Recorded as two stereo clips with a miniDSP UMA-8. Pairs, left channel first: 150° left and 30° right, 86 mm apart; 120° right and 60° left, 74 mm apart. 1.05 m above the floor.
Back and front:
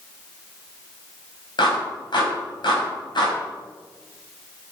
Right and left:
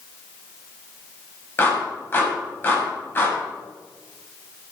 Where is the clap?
Straight behind, 5 m.